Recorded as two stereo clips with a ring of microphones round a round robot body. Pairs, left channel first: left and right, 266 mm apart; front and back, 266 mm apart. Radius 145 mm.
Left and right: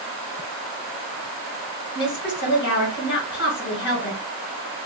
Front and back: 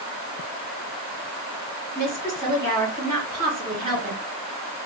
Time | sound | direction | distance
1.9 | a woman speaking | 130° left | 2.5 m